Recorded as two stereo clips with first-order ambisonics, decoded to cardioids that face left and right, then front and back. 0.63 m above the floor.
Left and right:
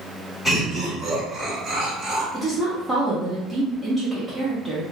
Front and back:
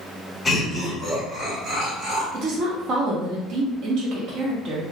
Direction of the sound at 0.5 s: 45° left.